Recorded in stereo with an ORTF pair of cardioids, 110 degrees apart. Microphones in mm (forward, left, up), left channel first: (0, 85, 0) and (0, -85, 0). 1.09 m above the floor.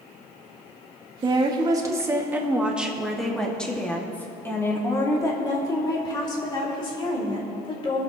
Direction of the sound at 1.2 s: 30° right.